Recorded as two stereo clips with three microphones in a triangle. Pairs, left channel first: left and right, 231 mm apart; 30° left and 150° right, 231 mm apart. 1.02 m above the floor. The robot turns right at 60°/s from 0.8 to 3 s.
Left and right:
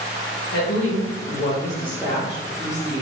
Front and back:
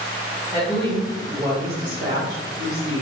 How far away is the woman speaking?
About 0.7 m.